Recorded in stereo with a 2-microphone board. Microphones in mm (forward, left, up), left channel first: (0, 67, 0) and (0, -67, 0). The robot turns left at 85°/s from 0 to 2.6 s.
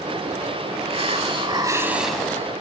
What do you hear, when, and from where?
0.9 s a hiss: 75° right, 0.7 m; by 2.5 s 145° left, 0.7 m